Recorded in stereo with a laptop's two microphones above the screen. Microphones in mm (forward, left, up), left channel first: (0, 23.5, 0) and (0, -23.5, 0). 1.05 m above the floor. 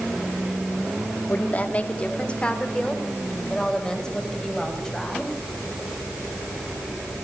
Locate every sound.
1.3 s a woman speaking: 35° left (ahead or behind), 1.8 m; by 5.3 s 10° left (ahead or behind), 6.5 m